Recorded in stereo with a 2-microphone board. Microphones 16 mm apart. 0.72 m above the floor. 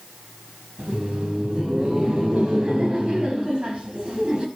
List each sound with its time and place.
0.8 s laughter: 80° right, 4.5 m